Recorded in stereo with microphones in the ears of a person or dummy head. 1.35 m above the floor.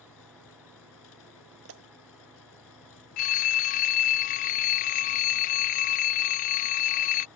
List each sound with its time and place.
0.0 s an engine running: 85° left
1.6 s a pop: 75° right (ahead or behind)
3.2 s a phone ringing: 50° left (ahead or behind)